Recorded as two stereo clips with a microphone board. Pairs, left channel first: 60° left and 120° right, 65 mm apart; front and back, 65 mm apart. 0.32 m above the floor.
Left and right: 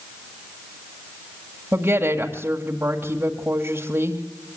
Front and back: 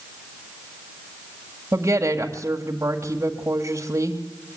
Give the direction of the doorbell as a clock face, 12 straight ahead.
No doorbell in this recording.